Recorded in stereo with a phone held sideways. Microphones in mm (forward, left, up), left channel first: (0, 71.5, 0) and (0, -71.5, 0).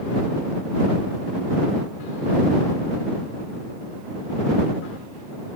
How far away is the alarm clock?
I don't hear an alarm clock.